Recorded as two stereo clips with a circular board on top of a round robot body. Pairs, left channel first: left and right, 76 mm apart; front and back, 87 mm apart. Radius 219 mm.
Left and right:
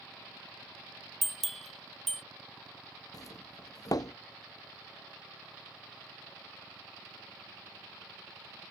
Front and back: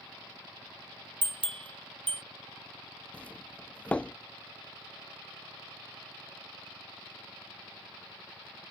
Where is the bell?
Straight behind.